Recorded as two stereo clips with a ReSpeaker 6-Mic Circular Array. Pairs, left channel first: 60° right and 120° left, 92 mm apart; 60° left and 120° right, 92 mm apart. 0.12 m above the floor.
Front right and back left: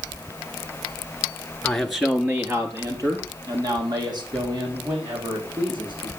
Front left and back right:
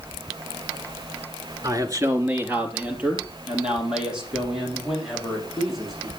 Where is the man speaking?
135° right, 1.4 m; by 6.1 s 150° left, 7 m.